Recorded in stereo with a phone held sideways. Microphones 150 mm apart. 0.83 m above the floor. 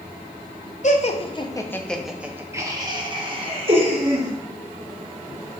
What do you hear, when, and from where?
0.8 s laughter: 55° left (ahead or behind), 0.7 m; by 4.3 s 45° right (ahead or behind), 1.5 m